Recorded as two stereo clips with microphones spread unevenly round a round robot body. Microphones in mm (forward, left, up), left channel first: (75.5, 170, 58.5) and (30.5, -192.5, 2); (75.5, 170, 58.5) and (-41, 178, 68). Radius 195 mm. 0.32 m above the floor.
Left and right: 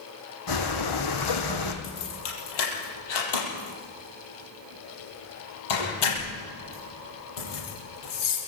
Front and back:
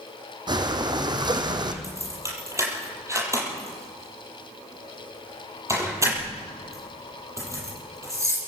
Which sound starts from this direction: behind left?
Breathing, at 0.5 s.